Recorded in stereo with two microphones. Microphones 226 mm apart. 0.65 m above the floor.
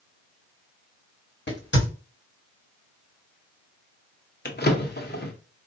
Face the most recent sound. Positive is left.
turn(degrees=45)  # may be behind; listen again after turning